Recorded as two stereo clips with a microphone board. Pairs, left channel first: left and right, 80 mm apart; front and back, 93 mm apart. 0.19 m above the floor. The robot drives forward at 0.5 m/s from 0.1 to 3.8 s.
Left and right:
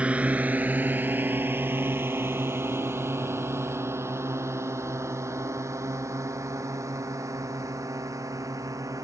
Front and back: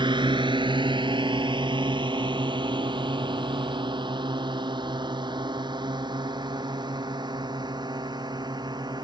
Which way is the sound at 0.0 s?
165° right.